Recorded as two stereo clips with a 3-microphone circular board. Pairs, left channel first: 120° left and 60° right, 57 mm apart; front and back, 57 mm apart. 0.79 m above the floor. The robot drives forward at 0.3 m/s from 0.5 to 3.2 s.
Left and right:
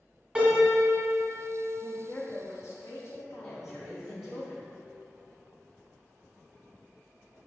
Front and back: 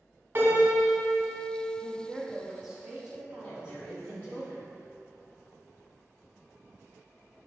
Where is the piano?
130° right, 1.3 m; by 1.7 s 140° right, 1.5 m.